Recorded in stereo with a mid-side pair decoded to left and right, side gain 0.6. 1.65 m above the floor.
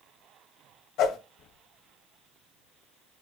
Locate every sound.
1.0 s a whoosh: 60° left, 1.2 m